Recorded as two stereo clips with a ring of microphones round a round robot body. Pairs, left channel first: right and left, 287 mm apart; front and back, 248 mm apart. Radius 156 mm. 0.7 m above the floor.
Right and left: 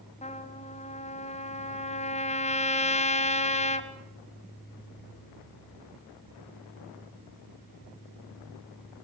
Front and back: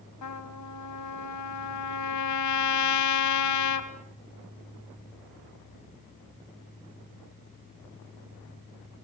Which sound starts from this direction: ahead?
A trumpet, at 0.2 s.